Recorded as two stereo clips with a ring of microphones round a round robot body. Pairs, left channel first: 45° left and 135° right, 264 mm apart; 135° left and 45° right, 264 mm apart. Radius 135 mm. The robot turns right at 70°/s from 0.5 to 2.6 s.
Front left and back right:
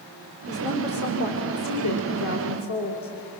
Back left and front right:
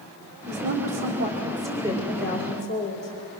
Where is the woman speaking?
65° right, 2 m; by 3.1 s 80° left, 2 m.